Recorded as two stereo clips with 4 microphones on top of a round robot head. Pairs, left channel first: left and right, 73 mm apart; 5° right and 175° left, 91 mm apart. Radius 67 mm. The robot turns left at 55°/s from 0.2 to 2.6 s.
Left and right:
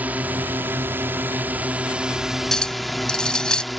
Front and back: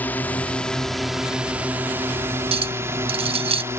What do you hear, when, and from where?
0.0 s a drone: 50° right; by 3.8 s straight behind
2.5 s a clink: 175° left; by 3.6 s 170° left